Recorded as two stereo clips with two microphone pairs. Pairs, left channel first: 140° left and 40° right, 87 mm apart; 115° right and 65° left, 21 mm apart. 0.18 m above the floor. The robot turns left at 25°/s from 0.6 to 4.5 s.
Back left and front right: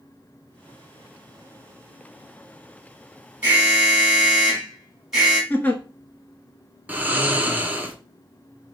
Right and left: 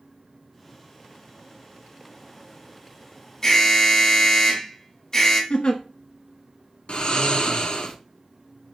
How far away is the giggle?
About 0.7 m.